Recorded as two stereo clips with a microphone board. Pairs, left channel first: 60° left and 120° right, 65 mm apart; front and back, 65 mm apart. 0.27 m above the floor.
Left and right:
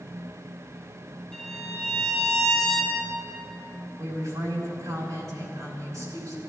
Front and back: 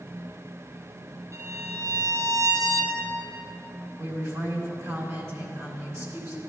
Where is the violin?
140° left, 1.7 m.